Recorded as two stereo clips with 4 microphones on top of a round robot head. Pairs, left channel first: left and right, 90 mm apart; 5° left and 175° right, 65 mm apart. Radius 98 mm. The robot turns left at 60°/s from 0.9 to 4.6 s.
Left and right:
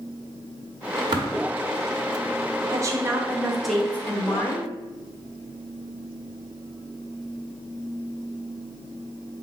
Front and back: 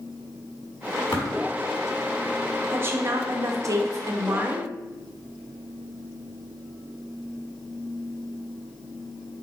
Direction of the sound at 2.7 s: 125° right.